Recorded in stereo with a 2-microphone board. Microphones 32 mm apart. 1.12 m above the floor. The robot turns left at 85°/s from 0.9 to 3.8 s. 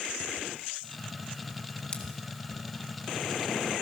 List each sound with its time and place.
1.9 s scissors: 25° left (ahead or behind), 1.9 m; by 2.0 s 20° left (ahead or behind), 1.9 m